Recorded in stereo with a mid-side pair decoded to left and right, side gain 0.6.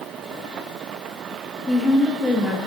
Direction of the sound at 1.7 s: 15° left.